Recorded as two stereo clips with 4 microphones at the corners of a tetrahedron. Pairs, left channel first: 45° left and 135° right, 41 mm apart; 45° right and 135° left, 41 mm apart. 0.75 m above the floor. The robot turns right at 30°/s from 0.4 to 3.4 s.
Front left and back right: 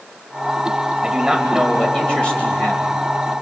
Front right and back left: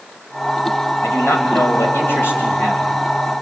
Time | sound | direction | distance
1.0 | a man speaking | 60° right | 3.5 m